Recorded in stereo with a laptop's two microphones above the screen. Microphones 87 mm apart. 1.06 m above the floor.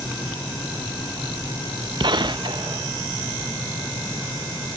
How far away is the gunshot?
About 0.6 m.